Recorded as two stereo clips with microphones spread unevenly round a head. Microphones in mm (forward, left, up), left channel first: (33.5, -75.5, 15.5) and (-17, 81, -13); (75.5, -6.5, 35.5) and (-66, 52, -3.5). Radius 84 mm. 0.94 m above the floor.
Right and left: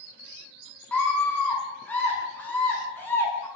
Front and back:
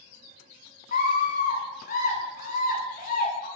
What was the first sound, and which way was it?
A scream, 10° left.